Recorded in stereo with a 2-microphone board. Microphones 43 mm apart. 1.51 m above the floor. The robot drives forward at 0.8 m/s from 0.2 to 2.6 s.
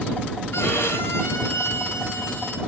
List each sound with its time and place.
0.5 s a violin: 70° left (ahead or behind), 5 m; by 2.6 s 55° left (ahead or behind), 5.5 m